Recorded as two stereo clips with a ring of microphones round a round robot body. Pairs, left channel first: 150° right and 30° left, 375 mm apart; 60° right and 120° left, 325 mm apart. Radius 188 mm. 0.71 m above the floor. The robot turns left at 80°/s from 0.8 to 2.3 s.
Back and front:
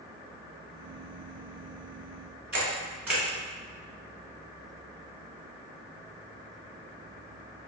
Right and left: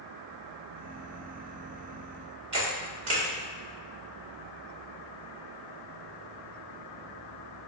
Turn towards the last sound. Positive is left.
turn(degrees=115)